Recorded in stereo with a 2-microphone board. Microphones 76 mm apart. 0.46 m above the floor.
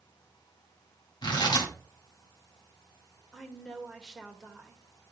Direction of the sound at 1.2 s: 75° left (ahead or behind).